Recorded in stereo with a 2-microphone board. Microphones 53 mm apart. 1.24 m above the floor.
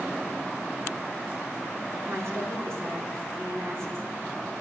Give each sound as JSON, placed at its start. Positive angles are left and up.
{"t": 2.0, "sound": "a woman speaking", "side_deg": -65, "distance_m": 2.0}